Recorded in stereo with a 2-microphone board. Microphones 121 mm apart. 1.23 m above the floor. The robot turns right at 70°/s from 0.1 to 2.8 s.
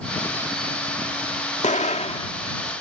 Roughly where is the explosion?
Left.